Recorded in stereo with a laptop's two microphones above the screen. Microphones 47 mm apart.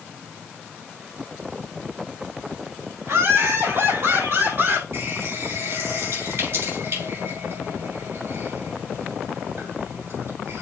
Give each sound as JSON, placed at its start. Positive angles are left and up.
{"t": 3.0, "sound": "laughter", "side_deg": -60, "distance_m": 4.5}
{"t": 4.9, "sound": "a running tap", "side_deg": -55, "distance_m": 5.0}